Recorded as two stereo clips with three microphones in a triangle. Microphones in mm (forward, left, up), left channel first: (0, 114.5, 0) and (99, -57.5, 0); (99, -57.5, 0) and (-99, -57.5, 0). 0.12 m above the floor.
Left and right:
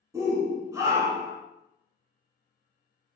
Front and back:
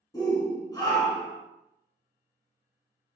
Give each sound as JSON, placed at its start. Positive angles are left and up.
{"t": 0.1, "sound": "a shout", "azimuth_deg": -20, "distance_m": 1.3}